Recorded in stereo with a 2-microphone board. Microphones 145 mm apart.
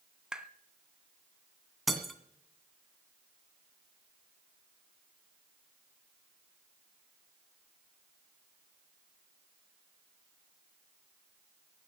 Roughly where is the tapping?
Centre.